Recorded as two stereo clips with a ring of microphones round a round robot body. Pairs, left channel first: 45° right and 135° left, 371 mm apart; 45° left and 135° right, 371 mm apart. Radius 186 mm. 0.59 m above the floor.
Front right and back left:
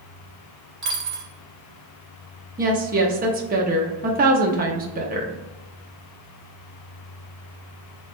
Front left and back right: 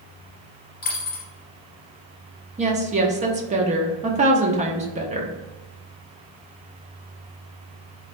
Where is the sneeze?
No sneeze in this recording.